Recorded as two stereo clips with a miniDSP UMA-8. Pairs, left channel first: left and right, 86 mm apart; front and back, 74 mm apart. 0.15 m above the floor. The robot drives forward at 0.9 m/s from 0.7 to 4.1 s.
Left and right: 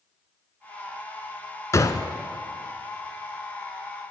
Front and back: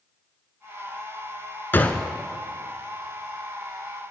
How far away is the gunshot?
About 0.6 m.